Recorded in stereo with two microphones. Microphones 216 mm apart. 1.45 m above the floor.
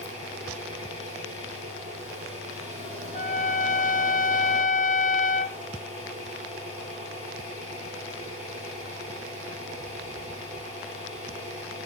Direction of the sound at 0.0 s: 30° right (ahead or behind).